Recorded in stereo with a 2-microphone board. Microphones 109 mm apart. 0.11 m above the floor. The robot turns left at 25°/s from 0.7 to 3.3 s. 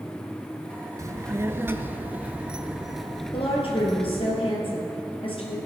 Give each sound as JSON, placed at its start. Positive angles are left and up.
{"t": 1.0, "sound": "a child speaking", "azimuth_deg": -130, "distance_m": 0.8}
{"t": 3.3, "sound": "a woman speaking", "side_deg": 55, "distance_m": 3.0}